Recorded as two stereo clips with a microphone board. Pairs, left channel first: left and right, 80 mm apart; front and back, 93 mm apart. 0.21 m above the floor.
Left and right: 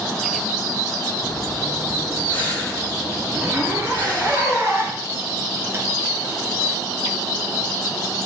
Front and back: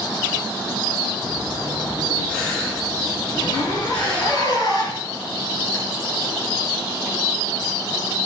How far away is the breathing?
About 4.5 m.